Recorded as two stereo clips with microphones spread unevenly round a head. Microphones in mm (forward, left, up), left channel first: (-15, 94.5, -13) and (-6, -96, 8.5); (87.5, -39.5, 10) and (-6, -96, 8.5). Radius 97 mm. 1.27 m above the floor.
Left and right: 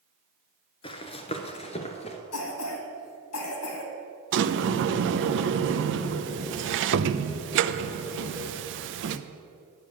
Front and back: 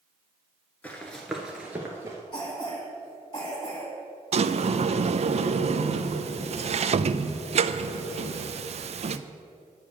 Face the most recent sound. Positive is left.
turn(degrees=-120)